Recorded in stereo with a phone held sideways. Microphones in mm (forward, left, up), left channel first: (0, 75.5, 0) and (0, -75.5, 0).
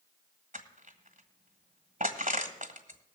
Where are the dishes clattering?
I don't hear dishes clattering.